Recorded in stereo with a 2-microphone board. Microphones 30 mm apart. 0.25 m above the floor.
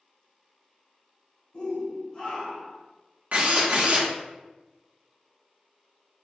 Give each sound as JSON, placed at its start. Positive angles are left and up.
{"t": 1.5, "sound": "a shout", "side_deg": 35, "distance_m": 1.9}
{"t": 3.3, "sound": "a drill", "side_deg": -55, "distance_m": 0.9}